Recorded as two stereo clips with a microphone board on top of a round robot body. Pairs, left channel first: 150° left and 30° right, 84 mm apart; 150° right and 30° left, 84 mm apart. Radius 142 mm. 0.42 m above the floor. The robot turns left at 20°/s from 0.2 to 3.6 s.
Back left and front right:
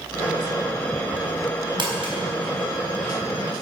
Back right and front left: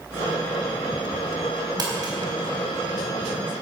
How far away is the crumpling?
About 4 m.